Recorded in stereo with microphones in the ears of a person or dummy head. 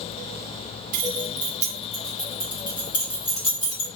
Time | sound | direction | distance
0.9 | keys jangling | 50° right (ahead or behind) | 0.7 m